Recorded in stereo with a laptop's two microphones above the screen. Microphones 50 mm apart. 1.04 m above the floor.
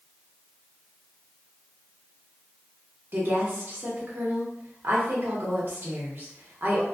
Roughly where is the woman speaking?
Right.